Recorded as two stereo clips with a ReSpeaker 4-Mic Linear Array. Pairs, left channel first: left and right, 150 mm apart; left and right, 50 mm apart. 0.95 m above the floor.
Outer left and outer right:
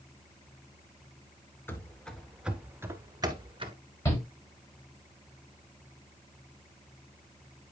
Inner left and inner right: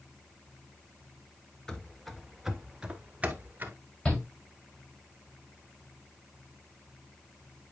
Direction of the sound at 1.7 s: 15° left (ahead or behind).